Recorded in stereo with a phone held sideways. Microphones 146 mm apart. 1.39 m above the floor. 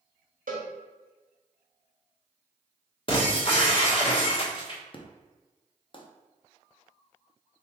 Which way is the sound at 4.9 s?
40° left (ahead or behind).